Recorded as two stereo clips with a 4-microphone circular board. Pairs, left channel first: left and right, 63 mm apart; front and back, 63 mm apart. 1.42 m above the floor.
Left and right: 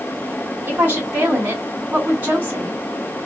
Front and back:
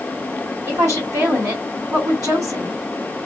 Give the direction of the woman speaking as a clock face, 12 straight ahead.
5 o'clock.